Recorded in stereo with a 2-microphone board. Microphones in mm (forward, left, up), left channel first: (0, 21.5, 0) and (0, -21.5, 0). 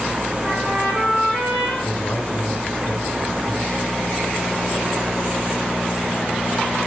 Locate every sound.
0.4 s a trumpet: 5° right (ahead or behind), 7.5 m
1.8 s a man speaking: 35° left (ahead or behind), 1.8 m